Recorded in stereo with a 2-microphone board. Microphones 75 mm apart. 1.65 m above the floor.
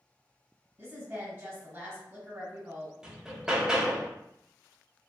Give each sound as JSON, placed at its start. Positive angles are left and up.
{"t": 0.8, "sound": "a woman speaking", "side_deg": -35, "distance_m": 1.3}
{"t": 3.0, "sound": "hammering", "side_deg": -10, "distance_m": 0.6}